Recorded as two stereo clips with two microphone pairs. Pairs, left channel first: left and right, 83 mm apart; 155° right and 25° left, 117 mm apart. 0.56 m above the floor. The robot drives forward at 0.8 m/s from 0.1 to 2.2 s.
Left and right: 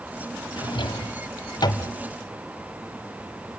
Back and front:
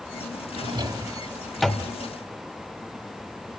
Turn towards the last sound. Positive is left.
turn(degrees=135)